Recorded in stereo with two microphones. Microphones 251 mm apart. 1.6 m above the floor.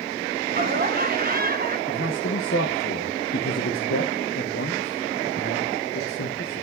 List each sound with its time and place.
0.5 s laughter: 35° right (ahead or behind), 1.6 m
1.9 s a man speaking: 50° left (ahead or behind), 1.3 m